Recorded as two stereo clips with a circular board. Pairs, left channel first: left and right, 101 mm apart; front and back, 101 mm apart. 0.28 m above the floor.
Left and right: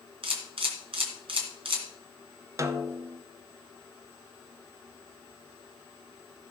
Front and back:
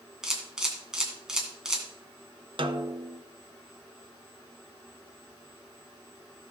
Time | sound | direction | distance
0.2 | a camera shutter | 95° right | 2.5 m
2.6 | a snare drum | 150° right | 0.7 m